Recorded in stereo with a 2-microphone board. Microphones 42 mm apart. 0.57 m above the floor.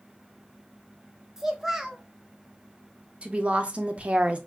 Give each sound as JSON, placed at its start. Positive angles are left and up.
{"t": 1.4, "sound": "a child speaking", "side_deg": -10, "distance_m": 0.8}
{"t": 3.2, "sound": "a woman speaking", "side_deg": -30, "distance_m": 0.7}